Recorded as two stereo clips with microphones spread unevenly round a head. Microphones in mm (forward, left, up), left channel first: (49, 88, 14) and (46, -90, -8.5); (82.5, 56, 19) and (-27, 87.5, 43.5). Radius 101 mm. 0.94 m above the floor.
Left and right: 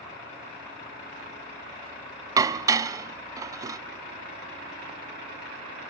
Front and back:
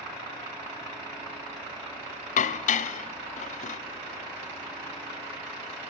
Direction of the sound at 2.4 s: 20° right.